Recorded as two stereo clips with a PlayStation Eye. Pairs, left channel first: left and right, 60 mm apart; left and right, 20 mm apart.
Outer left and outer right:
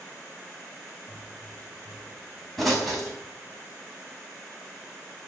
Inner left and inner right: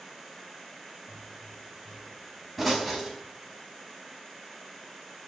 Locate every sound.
1.1 s a pop: centre (ahead or behind), 4.5 m